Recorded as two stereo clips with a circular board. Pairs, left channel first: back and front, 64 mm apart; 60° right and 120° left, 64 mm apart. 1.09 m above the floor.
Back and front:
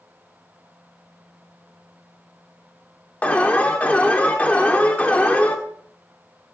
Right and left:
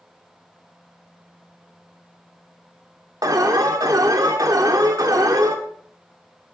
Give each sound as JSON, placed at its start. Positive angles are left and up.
{"t": 3.2, "sound": "an alarm", "azimuth_deg": 110, "distance_m": 1.6}